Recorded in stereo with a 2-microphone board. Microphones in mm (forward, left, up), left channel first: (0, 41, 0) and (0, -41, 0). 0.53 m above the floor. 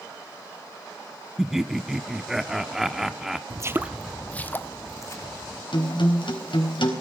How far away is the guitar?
About 3.5 m.